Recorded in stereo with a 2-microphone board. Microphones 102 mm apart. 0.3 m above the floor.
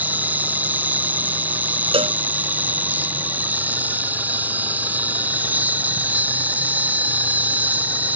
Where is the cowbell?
70° right (ahead or behind).